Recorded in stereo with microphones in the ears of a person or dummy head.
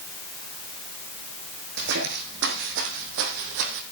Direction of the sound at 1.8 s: 55° right (ahead or behind).